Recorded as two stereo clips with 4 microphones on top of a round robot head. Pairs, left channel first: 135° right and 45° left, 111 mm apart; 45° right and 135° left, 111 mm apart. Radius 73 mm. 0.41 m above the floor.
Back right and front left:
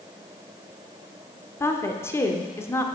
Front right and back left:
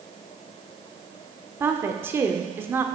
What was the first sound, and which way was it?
A woman speaking, 175° right.